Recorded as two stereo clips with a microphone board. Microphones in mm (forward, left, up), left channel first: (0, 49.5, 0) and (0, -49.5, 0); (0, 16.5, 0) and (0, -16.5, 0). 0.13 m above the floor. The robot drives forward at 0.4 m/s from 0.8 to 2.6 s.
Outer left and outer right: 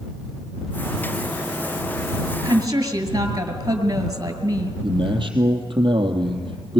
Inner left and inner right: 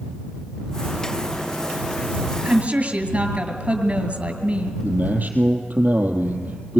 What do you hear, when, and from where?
2.4 s a woman speaking: 40° right (ahead or behind), 2 m; by 4.7 s 35° right (ahead or behind), 2.5 m
4.8 s a man speaking: 55° right (ahead or behind), 3 m